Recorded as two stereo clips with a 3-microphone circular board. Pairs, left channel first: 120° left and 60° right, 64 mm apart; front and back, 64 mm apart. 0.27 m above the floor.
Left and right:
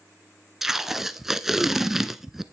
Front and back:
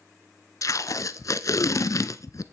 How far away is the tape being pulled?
About 0.6 m.